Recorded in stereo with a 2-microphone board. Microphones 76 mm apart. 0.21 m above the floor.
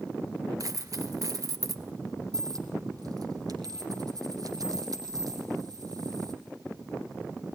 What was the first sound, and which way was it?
A dropped coin, 50° right (ahead or behind).